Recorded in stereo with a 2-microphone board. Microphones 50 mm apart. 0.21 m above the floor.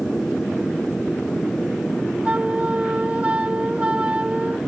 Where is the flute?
25° right (ahead or behind).